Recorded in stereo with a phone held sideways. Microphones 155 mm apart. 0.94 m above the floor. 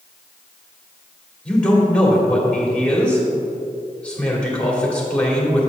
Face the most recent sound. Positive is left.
turn(degrees=10)  # may be behind; listen again after turning